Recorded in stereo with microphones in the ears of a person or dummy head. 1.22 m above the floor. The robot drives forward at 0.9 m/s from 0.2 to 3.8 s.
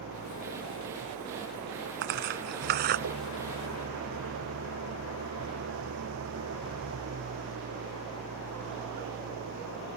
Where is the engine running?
75° right (ahead or behind); by 10.0 s 70° right (ahead or behind).